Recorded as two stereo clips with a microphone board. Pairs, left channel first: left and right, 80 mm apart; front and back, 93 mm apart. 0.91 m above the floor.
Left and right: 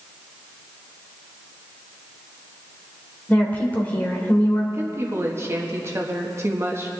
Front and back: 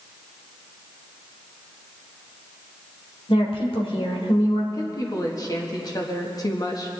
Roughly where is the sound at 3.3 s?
Ahead.